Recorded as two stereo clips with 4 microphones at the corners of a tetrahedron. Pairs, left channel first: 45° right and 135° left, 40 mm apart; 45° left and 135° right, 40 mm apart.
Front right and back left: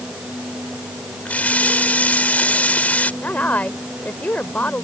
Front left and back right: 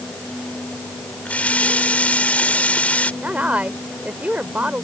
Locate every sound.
1.2 s a running tap: straight ahead
3.2 s a woman speaking: 90° right